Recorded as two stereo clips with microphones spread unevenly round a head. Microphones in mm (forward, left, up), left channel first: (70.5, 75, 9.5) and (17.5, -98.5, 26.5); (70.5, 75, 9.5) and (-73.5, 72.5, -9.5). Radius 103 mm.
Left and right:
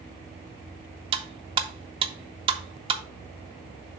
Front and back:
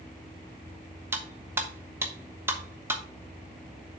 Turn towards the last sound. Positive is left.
turn(degrees=-100)